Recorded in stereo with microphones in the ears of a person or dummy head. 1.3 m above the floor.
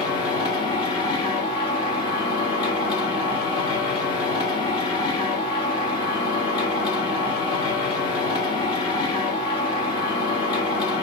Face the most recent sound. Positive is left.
turn(degrees=25)  # may be behind; listen again after turning